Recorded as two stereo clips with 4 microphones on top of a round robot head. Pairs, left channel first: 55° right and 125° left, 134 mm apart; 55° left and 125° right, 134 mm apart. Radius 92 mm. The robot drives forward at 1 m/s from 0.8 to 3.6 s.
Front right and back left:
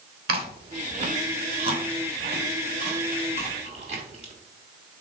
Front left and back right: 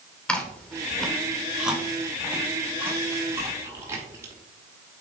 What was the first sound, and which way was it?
Chewing, 135° left.